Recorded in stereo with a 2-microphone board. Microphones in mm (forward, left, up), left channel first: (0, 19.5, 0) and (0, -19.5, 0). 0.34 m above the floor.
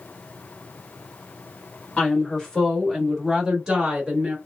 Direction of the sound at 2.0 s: 25° left (ahead or behind).